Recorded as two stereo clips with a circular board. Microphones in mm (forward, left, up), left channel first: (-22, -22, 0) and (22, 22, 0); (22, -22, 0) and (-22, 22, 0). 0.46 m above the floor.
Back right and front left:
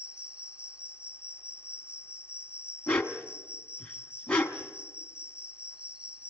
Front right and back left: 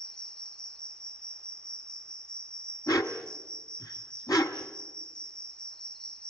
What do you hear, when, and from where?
0.0 s an insect: 15° left, 1.1 m
2.9 s a dog barking: 60° right, 1.3 m